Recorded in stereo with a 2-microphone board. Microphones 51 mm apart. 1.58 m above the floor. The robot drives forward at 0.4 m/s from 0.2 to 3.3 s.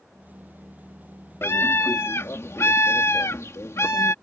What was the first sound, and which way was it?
A scream, 55° left (ahead or behind).